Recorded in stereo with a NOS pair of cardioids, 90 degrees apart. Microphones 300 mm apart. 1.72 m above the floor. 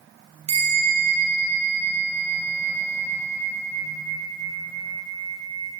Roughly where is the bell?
Ahead right.